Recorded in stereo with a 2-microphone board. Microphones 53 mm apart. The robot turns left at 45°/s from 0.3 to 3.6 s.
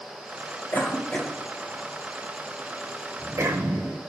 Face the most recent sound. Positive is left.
turn(degrees=-75)  # may be behind; listen again after turning